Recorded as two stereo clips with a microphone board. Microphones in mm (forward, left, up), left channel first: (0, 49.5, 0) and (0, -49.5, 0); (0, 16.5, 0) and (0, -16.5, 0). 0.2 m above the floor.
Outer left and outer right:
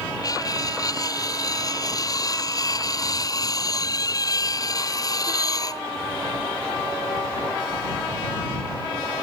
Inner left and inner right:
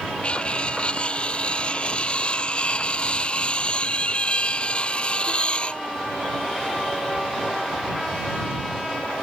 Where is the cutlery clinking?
40° left (ahead or behind).